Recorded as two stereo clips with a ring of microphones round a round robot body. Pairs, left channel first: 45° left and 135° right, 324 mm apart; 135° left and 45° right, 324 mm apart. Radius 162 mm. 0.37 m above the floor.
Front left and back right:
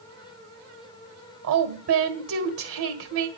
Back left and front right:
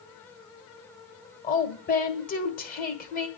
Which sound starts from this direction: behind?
A woman speaking, at 1.4 s.